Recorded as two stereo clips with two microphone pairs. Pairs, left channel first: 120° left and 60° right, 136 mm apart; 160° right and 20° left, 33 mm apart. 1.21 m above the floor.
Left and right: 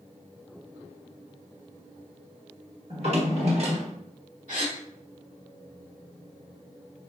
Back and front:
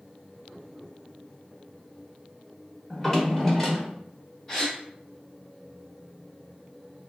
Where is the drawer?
75° right, 1.3 m.